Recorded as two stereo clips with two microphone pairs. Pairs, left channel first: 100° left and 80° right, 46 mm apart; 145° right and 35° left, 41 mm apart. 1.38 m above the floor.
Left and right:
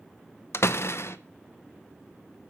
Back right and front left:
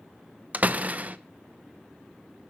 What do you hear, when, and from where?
0.5 s a door slam: 85° left, 0.7 m